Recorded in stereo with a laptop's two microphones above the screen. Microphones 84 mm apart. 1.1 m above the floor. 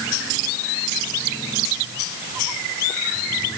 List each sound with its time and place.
Only background noise.